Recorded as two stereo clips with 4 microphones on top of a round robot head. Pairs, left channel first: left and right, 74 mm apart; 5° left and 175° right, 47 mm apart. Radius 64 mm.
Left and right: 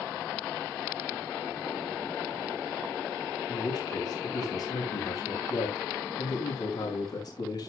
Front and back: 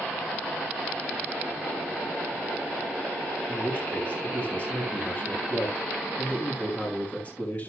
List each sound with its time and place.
3.5 s a man speaking: 60° left, 4.5 m